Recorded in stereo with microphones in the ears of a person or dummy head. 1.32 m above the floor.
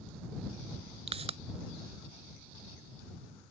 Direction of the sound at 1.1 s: 35° right (ahead or behind).